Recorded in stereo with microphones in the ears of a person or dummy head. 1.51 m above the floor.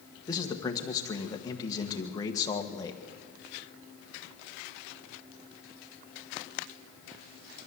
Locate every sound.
0.3 s a man speaking: 20° left (ahead or behind), 1.5 m